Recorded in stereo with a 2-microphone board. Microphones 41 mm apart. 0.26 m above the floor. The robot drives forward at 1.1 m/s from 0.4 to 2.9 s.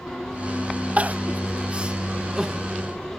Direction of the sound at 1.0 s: 35° right (ahead or behind).